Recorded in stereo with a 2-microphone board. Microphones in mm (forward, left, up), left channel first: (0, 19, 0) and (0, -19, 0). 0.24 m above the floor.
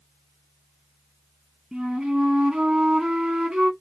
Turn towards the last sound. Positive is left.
turn(degrees=-20)  # may be behind; listen again after turning